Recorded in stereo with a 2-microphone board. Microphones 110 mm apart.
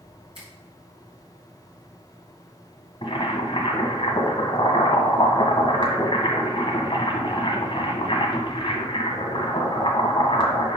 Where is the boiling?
50° left (ahead or behind), 1.6 m.